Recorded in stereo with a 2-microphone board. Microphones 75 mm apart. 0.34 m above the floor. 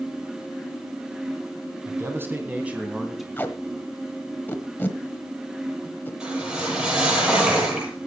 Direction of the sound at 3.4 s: 25° left (ahead or behind).